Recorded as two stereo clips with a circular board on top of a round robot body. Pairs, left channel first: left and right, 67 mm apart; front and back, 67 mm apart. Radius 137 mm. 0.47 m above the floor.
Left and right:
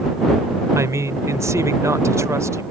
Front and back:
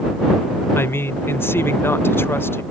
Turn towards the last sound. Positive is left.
turn(degrees=-50)